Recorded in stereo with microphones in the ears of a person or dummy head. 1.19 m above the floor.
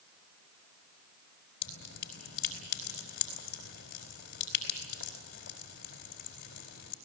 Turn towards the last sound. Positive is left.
turn(degrees=55)  # may be behind; listen again after turning